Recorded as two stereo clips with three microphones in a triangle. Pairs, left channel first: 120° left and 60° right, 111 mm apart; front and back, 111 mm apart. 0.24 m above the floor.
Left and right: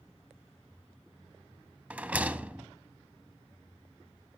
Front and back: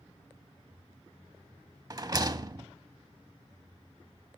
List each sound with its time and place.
1.9 s a rattle: 135° right, 0.5 m